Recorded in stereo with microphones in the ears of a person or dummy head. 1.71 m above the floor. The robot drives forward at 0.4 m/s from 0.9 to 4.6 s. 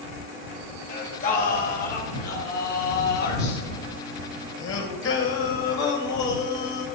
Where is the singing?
45° left (ahead or behind), 2.5 m; by 6.8 s 80° left, 1.9 m.